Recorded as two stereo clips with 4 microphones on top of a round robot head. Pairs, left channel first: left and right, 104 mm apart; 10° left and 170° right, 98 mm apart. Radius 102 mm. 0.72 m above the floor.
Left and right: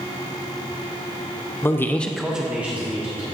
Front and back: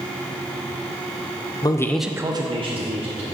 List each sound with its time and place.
1.6 s a man speaking: 30° left, 0.8 m; by 3.2 s 165° right, 1.7 m